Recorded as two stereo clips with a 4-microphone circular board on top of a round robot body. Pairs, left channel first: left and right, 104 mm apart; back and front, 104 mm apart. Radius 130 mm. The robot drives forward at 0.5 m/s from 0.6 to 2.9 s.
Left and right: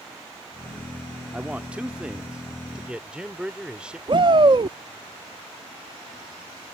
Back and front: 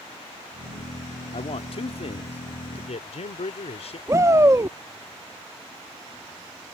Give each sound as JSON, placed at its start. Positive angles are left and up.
{"t": 1.3, "sound": "a man speaking", "azimuth_deg": -165}
{"t": 4.1, "sound": "a shout", "azimuth_deg": -60}